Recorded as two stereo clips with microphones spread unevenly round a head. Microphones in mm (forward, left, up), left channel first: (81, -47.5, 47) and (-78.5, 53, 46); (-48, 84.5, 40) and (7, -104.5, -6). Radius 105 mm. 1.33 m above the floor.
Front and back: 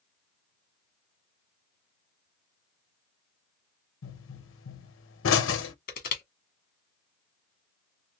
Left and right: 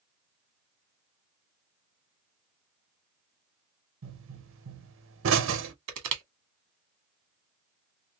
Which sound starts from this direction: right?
Crushing, at 5.9 s.